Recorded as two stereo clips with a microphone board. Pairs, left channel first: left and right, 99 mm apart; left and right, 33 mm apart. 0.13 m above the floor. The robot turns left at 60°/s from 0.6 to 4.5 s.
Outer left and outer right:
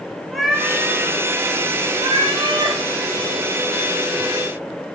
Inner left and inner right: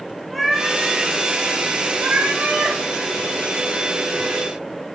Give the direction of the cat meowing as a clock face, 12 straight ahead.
12 o'clock.